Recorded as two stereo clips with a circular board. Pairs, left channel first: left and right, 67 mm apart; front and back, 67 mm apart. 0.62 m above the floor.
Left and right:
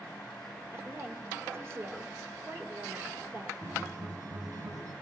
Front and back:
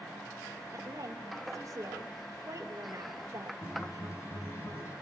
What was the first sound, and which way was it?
A woman speaking, 140° right.